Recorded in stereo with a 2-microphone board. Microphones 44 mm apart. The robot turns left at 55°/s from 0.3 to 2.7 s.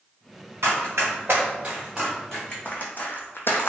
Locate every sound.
0.6 s running footsteps: 75° right (ahead or behind), 1.8 m; by 3.7 s 60° left (ahead or behind), 0.6 m